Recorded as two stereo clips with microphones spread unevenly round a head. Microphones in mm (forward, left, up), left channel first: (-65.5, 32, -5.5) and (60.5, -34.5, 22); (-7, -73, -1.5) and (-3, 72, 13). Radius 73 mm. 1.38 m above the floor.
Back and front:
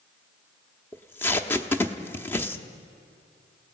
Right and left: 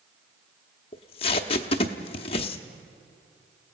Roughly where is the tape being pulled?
Behind right.